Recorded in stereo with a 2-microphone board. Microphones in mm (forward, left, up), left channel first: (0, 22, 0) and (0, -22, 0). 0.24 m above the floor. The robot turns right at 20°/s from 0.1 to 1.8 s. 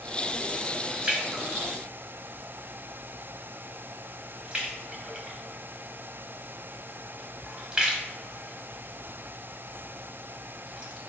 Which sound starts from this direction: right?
A splash, at 1.0 s.